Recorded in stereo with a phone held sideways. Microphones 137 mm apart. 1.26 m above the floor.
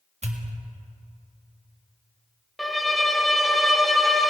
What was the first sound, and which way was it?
A pop, 55° right (ahead or behind).